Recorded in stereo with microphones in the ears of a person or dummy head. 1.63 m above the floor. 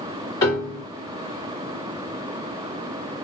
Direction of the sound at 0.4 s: 20° left (ahead or behind).